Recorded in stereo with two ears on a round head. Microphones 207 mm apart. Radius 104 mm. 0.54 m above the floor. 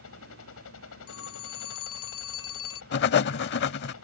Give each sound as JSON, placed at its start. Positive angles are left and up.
{"t": 0.0, "sound": "a helicopter", "side_deg": 60}
{"t": 1.1, "sound": "a phone ringing", "side_deg": 65}
{"t": 2.9, "sound": "writing", "side_deg": 45}